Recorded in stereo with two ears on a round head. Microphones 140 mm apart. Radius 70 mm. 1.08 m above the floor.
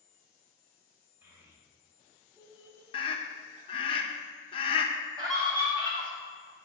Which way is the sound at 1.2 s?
15° right (ahead or behind).